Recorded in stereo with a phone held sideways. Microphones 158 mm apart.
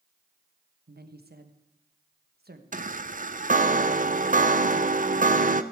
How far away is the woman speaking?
About 1.2 m.